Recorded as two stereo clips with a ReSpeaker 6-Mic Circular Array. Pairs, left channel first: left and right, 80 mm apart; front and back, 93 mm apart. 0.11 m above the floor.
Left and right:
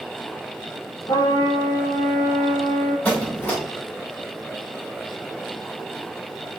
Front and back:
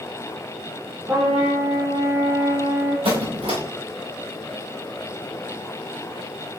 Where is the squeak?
165° left, 4.5 m.